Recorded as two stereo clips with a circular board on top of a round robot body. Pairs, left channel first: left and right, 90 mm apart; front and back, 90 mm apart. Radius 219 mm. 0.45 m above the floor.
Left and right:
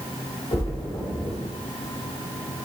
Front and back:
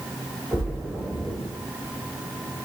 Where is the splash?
105° left, 2.5 m.